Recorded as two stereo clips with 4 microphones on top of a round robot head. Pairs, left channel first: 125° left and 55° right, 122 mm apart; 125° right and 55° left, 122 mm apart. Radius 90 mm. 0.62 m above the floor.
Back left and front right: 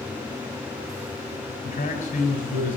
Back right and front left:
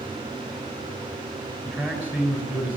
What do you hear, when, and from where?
1.6 s a man speaking: 135° left, 6 m